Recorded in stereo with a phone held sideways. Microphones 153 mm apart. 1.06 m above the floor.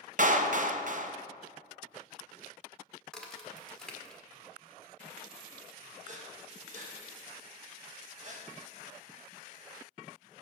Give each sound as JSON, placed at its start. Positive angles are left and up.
{"t": 0.2, "sound": "a clap", "side_deg": -55, "distance_m": 0.5}
{"t": 3.1, "sound": "a crack", "side_deg": 5, "distance_m": 1.2}
{"t": 6.0, "sound": "breathing", "side_deg": -55, "distance_m": 1.2}